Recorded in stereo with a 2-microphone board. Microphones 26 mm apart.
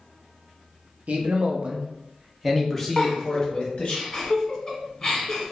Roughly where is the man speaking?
Right.